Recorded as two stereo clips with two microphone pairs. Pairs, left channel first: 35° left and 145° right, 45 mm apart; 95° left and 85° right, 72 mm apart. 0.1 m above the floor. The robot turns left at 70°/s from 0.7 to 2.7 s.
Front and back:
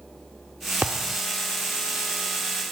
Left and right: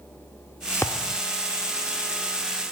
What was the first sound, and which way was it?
A thud, 155° left.